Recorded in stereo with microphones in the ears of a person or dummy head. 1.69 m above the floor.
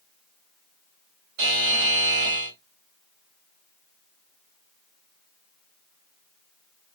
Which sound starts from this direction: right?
A buzzer, at 1.4 s.